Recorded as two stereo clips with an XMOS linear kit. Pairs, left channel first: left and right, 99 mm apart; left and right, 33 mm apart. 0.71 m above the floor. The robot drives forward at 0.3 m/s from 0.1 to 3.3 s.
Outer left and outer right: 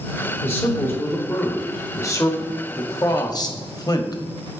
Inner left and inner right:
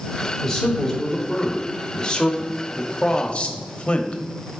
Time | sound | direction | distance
0.4 | a man speaking | 20° left (ahead or behind) | 1.5 m